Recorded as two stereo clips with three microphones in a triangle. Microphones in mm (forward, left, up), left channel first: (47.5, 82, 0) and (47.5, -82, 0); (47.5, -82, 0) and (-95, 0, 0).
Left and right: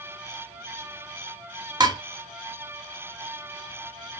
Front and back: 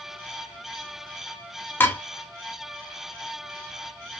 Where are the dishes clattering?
90° right, 0.7 m.